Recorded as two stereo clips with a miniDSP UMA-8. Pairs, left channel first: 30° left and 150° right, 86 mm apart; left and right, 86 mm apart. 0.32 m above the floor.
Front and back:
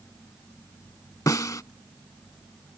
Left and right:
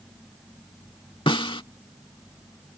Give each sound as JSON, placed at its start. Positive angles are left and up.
{"t": 1.3, "sound": "a snare drum", "azimuth_deg": 80}